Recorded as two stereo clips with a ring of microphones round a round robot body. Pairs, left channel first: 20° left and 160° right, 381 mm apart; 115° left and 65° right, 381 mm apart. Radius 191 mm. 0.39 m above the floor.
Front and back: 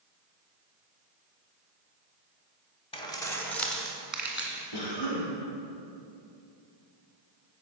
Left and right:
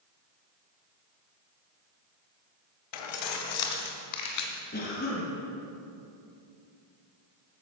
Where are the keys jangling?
100° left, 1.3 m; by 4.6 s 120° left, 2.5 m.